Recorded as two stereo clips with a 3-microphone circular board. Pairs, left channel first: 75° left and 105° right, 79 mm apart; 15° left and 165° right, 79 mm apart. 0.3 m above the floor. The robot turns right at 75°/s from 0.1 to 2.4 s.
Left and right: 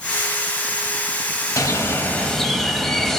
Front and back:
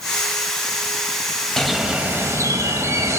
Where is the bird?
95° left, 0.8 m; by 3.2 s 160° left, 0.8 m.